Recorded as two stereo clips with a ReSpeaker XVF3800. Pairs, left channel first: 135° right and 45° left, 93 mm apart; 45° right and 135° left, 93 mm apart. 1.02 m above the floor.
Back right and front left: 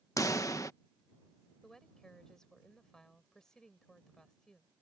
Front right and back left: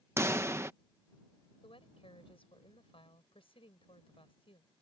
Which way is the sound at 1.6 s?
50° right.